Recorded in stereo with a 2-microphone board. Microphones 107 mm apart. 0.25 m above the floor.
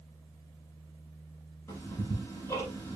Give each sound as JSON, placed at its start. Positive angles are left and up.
{"t": 1.7, "sound": "ticking", "side_deg": 25, "distance_m": 7.5}